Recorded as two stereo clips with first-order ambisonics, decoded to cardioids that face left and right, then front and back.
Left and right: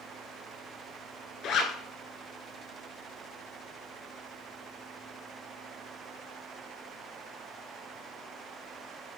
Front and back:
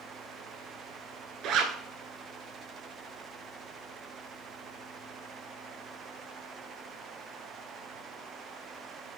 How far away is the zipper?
About 1.3 m.